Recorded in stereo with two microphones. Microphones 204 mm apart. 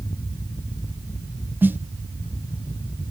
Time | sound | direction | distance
1.6 | a snare drum | 10° right (ahead or behind) | 0.8 m